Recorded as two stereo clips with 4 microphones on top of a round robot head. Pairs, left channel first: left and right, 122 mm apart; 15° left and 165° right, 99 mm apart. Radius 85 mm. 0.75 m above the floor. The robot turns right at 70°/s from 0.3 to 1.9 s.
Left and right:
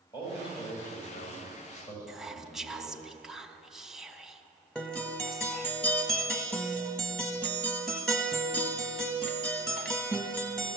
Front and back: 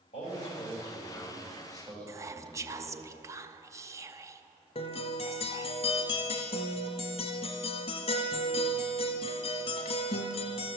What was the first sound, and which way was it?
A man speaking, 35° left.